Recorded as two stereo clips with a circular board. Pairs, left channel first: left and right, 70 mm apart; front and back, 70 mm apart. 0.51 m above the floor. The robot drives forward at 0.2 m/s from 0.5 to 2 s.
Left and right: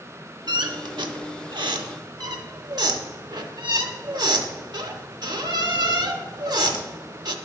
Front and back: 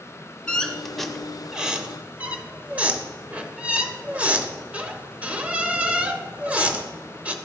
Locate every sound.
0.5 s a squeak: 75° right, 0.5 m; by 7.3 s 105° right, 0.5 m